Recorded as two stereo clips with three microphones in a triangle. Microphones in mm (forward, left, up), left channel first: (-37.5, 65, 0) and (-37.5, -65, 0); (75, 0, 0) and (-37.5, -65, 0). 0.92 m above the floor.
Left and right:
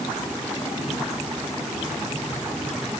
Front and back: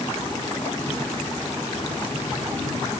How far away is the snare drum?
No snare drum in this recording.